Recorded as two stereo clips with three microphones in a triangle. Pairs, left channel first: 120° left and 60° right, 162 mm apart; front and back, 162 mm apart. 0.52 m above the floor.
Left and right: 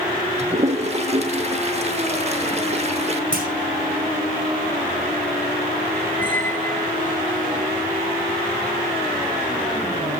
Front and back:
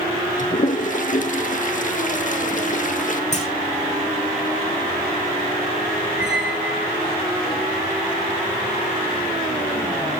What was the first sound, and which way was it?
A toilet flushing, 20° right.